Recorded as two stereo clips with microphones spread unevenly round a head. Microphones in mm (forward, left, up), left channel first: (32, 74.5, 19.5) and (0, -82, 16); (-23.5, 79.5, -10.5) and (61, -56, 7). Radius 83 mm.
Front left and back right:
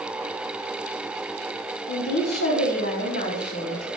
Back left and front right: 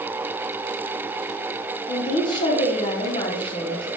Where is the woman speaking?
65° left, 1.3 m.